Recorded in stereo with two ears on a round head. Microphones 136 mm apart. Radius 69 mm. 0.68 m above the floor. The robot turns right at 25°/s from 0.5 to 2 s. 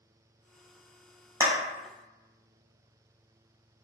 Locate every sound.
1.4 s a clap: 15° right (ahead or behind), 0.6 m; by 1.5 s 20° right (ahead or behind), 0.6 m